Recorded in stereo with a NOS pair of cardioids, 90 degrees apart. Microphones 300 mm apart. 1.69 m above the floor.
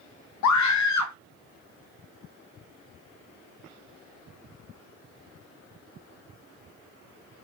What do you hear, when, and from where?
0.4 s a scream: 70° left, 0.8 m